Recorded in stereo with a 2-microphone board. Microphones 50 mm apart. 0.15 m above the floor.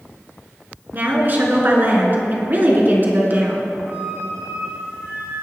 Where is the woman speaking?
40° right (ahead or behind), 2 m.